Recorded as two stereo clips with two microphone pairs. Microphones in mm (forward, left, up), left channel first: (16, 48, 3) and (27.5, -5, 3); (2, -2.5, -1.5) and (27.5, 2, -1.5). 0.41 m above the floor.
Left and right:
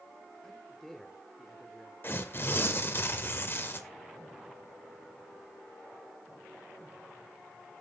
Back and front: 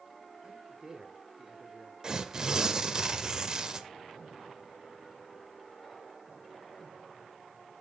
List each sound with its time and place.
0.4 s a man speaking: 25° left, 1.2 m
2.0 s tearing paper: 65° left, 0.7 m